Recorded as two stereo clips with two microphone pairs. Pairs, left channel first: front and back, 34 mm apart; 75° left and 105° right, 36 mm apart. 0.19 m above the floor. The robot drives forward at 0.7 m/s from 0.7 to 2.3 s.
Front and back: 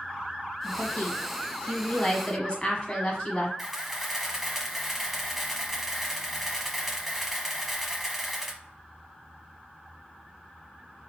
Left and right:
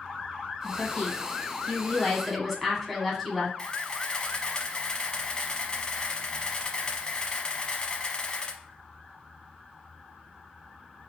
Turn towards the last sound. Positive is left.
turn(degrees=110)